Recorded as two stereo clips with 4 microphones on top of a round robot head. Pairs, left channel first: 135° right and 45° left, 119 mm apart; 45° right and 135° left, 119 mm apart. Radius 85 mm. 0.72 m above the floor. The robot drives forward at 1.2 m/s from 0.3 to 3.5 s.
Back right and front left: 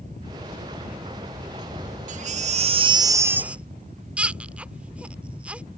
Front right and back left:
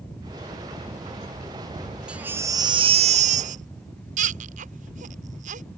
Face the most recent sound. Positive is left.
turn(degrees=125)